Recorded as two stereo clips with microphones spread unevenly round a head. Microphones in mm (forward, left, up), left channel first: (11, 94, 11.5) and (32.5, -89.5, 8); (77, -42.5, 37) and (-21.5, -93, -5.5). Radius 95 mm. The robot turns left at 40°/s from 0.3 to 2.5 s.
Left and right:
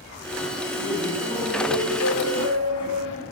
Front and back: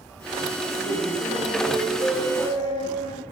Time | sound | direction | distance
0.7 | laughter | 165° left | 7 m